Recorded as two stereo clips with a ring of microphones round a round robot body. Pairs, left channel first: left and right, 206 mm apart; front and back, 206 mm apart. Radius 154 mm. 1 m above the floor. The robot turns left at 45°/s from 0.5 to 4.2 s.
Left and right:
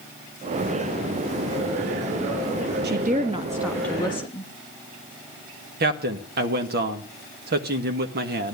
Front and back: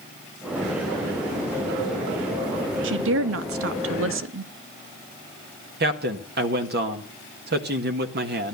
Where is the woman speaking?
140° right, 1.1 m; by 4.5 s 160° left, 1.1 m.